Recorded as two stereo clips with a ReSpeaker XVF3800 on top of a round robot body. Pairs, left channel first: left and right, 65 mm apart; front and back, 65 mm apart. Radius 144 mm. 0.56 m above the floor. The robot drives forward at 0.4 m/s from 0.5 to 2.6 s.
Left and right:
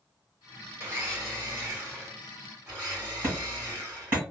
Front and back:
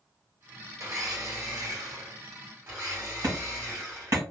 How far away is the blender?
About 1.7 m.